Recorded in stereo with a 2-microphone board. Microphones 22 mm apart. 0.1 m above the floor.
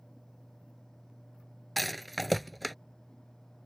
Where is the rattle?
5° left (ahead or behind).